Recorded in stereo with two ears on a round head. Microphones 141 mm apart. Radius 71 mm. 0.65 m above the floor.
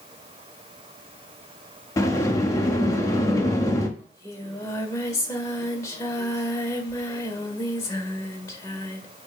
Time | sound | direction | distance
2.0 | a sliding door | 20° left (ahead or behind) | 1.1 m
4.0 | singing | 20° left (ahead or behind) | 1.6 m